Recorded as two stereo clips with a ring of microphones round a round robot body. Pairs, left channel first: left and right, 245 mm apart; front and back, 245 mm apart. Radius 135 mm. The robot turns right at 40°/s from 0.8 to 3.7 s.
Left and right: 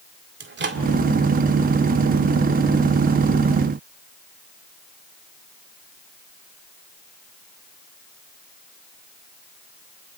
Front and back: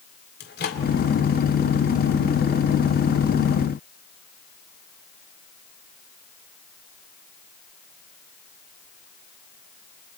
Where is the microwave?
50° right, 2.0 m.